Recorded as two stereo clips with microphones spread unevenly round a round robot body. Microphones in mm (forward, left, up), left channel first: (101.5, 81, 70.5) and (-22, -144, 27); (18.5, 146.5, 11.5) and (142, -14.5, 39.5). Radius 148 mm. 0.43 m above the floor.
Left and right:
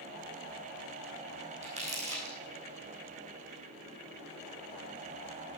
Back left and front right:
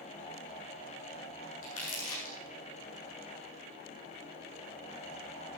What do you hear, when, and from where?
1.6 s crumpling: 175° left, 4.5 m